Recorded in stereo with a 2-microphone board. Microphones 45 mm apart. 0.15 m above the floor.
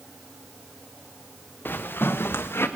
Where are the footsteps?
50° left (ahead or behind), 1.3 m; by 2.7 s 70° left (ahead or behind), 1.7 m.